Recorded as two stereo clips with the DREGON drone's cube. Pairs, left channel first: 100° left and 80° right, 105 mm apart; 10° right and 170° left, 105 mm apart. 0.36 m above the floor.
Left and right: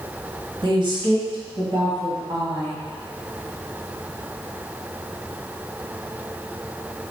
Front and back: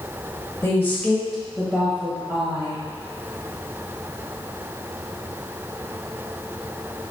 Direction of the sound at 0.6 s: 70° right.